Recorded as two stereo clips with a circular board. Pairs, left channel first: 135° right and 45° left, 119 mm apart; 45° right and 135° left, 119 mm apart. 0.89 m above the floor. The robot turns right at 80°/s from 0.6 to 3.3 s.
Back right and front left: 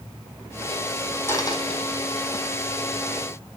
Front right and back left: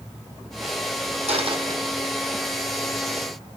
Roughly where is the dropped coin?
Behind left.